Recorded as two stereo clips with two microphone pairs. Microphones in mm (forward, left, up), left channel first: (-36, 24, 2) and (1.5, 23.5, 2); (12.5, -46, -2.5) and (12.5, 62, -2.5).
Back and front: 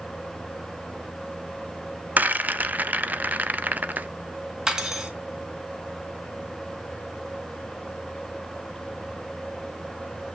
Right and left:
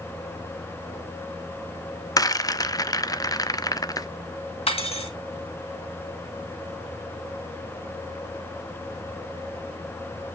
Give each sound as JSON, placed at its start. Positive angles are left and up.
{"t": 2.2, "sound": "a rattle", "azimuth_deg": -40, "distance_m": 0.5}
{"t": 4.7, "sound": "cutlery clinking", "azimuth_deg": -70, "distance_m": 1.7}